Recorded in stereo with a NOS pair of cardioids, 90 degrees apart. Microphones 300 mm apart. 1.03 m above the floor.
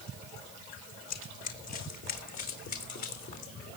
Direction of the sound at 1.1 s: 60° left.